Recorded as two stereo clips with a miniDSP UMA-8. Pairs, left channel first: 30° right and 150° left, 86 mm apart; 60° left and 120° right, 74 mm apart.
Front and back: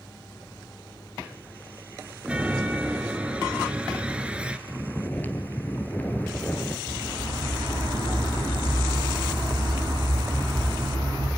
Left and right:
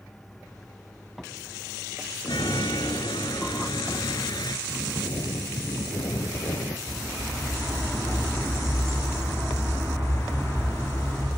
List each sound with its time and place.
2.2 s a chime: 70° left, 1.2 m
4.7 s snoring: 40° left, 1.6 m
6.9 s a bird: 115° left, 6.5 m